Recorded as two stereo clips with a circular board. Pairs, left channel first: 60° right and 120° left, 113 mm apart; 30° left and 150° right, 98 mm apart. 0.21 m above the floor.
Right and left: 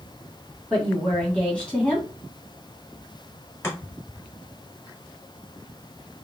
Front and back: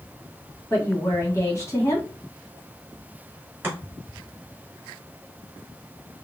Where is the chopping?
110° right, 1.3 m.